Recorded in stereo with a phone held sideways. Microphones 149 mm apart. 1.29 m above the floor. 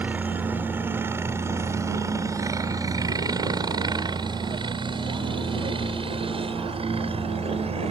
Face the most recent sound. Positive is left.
turn(degrees=-45)  # may be behind; listen again after turning